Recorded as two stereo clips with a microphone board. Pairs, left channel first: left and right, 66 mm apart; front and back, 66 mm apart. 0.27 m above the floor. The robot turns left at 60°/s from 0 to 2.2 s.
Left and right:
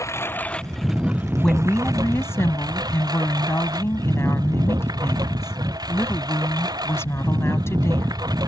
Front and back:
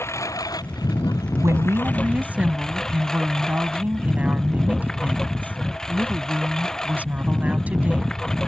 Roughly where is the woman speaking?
Behind.